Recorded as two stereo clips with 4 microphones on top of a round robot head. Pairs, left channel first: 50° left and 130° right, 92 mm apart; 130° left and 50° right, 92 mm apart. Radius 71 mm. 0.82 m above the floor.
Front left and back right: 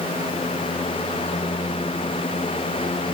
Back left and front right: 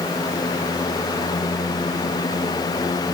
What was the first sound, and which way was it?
Only background noise.